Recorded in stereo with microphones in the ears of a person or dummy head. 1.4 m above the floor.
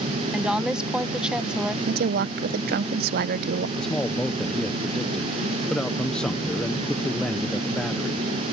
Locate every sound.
0.3 s a woman speaking: 5° right (ahead or behind)
1.9 s a woman speaking: 55° right (ahead or behind)
3.8 s a man speaking: centre (ahead or behind)